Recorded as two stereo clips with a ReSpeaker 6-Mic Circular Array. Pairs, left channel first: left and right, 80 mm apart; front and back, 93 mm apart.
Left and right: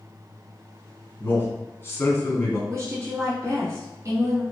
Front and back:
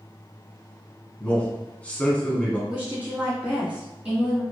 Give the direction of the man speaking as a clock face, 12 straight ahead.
10 o'clock.